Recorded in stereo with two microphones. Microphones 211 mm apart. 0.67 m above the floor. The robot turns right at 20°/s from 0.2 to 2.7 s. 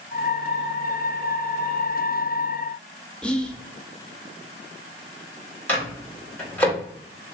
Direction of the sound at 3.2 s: 5° left (ahead or behind).